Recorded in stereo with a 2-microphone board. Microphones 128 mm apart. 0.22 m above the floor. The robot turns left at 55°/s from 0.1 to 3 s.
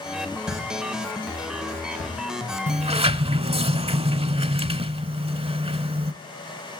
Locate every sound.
0.5 s a pop: centre (ahead or behind), 7.5 m; by 3.1 s 40° left (ahead or behind), 7.5 m
2.7 s a sliding door: 65° right (ahead or behind), 0.6 m; by 6.1 s 50° right (ahead or behind), 0.6 m